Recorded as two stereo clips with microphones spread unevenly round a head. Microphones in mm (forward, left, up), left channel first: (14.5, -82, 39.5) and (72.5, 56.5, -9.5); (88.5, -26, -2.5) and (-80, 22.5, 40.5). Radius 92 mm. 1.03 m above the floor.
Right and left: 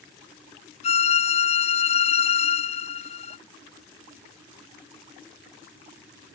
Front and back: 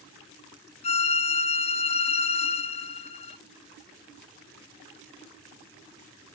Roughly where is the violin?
Ahead right.